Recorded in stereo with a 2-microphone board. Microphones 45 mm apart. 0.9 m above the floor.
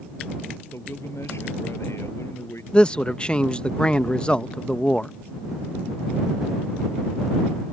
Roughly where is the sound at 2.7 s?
Left.